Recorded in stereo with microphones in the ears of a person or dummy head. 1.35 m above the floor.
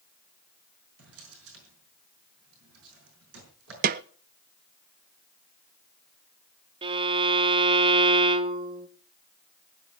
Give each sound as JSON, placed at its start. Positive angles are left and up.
{"t": 1.0, "sound": "a drawer", "side_deg": -80, "distance_m": 5.5}
{"t": 3.8, "sound": "a snare drum", "side_deg": -40, "distance_m": 0.5}
{"t": 6.8, "sound": "a violin", "side_deg": -30, "distance_m": 1.1}